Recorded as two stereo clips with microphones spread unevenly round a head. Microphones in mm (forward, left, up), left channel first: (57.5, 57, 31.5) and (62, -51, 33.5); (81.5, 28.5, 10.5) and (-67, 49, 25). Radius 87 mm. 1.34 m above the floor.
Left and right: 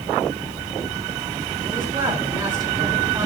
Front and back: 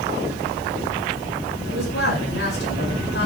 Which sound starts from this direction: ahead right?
A man speaking, at 1.7 s.